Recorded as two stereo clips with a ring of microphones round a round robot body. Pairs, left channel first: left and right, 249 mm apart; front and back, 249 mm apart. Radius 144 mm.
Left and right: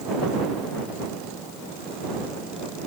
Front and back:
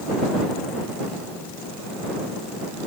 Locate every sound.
Only background noise.